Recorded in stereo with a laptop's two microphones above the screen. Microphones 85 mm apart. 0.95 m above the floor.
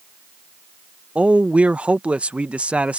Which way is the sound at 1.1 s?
15° right (ahead or behind).